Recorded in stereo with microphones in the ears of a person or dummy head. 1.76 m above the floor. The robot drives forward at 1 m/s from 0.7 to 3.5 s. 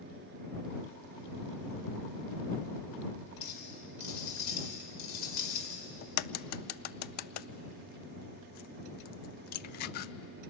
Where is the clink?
50° left (ahead or behind), 5.5 m.